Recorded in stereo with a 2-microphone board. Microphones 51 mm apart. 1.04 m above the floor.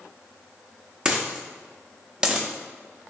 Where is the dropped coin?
15° right (ahead or behind), 0.5 m.